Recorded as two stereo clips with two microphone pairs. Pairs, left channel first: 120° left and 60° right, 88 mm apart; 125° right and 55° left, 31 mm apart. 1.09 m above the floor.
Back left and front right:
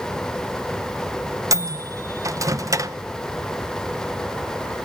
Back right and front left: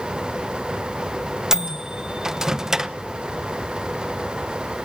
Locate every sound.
1.5 s a microwave: 20° right, 0.8 m